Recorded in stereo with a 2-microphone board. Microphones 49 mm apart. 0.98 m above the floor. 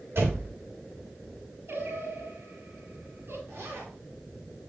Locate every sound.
0.1 s a door slam: 65° right (ahead or behind), 2.5 m
1.7 s singing: 60° right (ahead or behind), 6 m
3.5 s a zipper: 70° right (ahead or behind), 3 m